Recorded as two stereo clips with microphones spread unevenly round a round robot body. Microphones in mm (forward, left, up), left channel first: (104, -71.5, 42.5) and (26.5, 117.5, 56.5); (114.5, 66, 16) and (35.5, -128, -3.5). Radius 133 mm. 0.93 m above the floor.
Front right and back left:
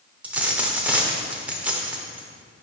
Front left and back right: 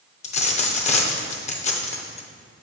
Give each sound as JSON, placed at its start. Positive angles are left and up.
{"t": 0.2, "sound": "a dropped coin", "azimuth_deg": 35, "distance_m": 0.7}